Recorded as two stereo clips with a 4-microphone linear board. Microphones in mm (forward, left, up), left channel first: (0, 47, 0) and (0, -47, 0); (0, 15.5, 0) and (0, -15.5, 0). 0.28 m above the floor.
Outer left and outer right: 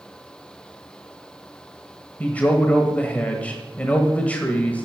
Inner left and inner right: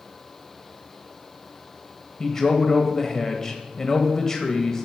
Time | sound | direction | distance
2.2 | a man speaking | 15° left (ahead or behind) | 0.9 m